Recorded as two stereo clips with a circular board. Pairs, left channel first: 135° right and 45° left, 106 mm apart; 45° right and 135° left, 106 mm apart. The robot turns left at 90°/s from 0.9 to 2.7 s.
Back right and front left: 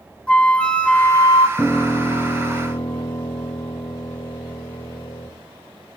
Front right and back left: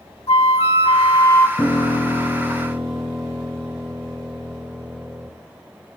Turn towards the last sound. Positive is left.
turn(degrees=-160)